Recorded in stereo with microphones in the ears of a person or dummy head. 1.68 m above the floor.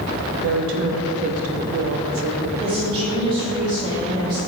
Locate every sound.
0.4 s a woman speaking: 80° right, 0.7 m
2.6 s a woman speaking: 25° right (ahead or behind), 1.3 m